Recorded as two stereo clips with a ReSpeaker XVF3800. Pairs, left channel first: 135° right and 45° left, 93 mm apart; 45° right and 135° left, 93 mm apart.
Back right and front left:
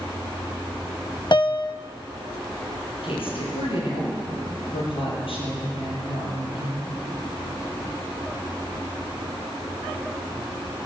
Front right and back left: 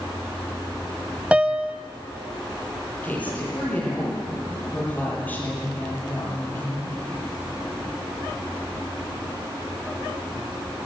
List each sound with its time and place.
1.3 s a piano: 150° right, 0.6 m
3.0 s a woman speaking: 120° right, 9.5 m